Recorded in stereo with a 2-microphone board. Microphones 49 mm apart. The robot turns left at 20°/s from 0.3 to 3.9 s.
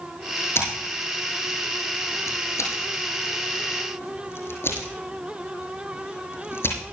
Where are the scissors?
55° left (ahead or behind), 8 m; by 6.8 s 60° left (ahead or behind), 8 m.